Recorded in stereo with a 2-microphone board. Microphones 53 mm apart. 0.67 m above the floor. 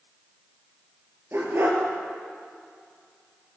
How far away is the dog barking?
About 4.5 m.